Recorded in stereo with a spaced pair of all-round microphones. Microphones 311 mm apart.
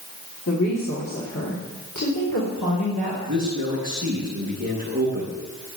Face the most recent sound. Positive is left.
turn(degrees=-40)  # may be behind; listen again after turning